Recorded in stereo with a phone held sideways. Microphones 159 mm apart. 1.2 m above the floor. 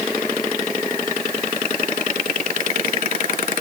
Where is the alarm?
No alarm in this recording.